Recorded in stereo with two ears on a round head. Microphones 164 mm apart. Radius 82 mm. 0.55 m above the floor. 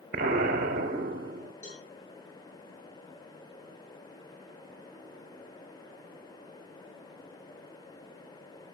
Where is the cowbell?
25° left (ahead or behind), 6 m.